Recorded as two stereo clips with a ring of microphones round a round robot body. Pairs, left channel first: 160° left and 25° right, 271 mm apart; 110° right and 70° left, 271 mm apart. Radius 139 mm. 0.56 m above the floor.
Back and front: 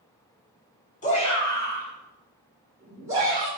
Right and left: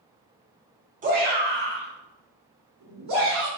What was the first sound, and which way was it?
A shout, 110° left.